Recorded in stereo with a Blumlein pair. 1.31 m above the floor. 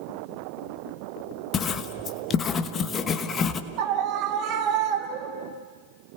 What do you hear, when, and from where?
1.5 s writing: 25° left, 1.1 m
3.8 s a scream: 40° right, 3.5 m